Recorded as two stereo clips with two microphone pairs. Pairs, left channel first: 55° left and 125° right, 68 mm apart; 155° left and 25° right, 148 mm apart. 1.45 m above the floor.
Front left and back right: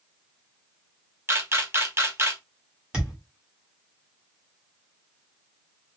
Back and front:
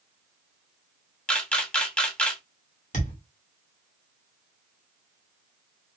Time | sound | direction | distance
1.3 | a camera shutter | 130° right | 0.8 m
2.9 | a thud | 165° left | 1.3 m